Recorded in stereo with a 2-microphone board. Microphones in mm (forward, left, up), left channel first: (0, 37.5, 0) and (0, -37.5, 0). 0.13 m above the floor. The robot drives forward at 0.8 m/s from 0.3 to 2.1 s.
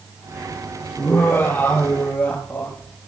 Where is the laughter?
30° left (ahead or behind), 3 m; by 3.0 s 25° left (ahead or behind), 3.5 m.